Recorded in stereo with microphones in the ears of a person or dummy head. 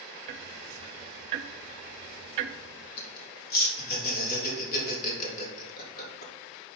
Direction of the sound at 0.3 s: 35° right (ahead or behind).